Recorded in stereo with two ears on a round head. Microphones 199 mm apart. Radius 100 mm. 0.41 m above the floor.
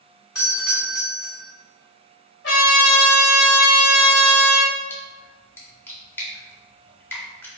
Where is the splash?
10° left (ahead or behind), 0.7 m.